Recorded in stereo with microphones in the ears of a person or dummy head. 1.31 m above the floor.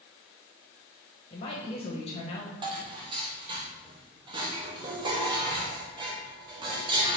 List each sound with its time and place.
1.3 s a woman speaking: 35° left (ahead or behind), 1.2 m
2.6 s dishes clattering: 35° right (ahead or behind), 0.8 m